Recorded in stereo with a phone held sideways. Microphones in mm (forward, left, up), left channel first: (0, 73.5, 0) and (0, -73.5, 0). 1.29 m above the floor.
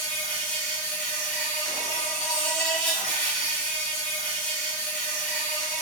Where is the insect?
10° left (ahead or behind), 1.0 m.